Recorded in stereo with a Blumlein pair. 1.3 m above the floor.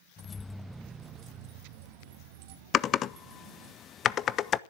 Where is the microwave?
I don't hear a microwave.